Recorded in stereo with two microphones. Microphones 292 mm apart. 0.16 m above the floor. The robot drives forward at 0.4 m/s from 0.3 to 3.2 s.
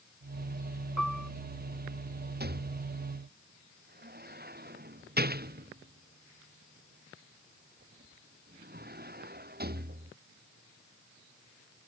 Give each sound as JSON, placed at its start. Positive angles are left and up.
{"t": 1.0, "sound": "a piano", "side_deg": -80}
{"t": 2.4, "sound": "a rattle", "side_deg": -35}